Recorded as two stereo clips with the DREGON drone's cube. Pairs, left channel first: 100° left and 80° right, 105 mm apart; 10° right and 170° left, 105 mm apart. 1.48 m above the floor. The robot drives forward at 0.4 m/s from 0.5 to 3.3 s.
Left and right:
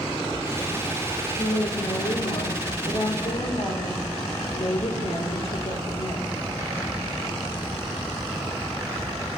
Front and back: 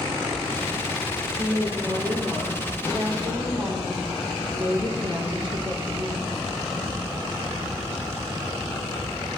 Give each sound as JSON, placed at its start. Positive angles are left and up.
{"t": 1.4, "sound": "a woman speaking", "azimuth_deg": 105, "distance_m": 1.9}